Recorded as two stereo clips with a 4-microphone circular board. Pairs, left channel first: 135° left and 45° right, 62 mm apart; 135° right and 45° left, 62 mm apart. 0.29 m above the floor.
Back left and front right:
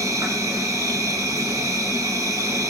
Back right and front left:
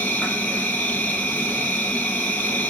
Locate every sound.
0.0 s an insect: 75° right, 1.2 m